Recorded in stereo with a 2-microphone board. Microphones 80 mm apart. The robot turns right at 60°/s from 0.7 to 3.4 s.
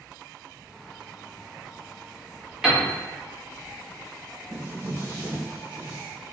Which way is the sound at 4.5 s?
25° right (ahead or behind).